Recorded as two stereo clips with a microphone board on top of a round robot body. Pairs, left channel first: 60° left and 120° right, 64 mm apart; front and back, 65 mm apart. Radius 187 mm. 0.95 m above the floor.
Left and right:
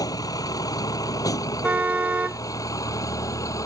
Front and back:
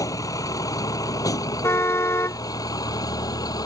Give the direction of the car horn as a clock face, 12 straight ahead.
2 o'clock.